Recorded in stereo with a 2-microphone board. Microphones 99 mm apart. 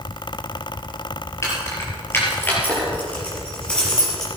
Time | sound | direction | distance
1.4 | keys jangling | 30° left (ahead or behind) | 4.5 m